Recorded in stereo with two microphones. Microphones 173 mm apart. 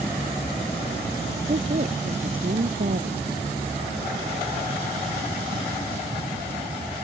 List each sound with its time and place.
1.5 s a woman speaking: 50° right (ahead or behind); by 3.3 s 60° right (ahead or behind)